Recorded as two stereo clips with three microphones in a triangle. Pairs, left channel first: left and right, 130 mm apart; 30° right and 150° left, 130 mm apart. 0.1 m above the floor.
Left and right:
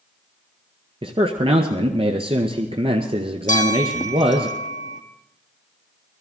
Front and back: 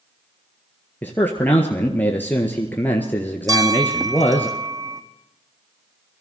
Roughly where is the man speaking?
Right.